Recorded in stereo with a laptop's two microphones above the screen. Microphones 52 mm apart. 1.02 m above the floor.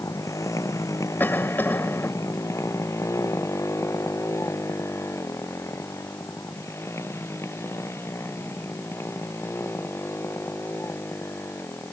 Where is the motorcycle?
85° left; by 11.9 s 50° left (ahead or behind).